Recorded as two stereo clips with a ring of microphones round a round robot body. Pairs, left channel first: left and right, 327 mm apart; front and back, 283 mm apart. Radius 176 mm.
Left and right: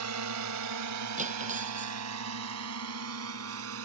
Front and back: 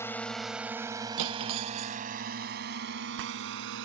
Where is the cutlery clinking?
160° right.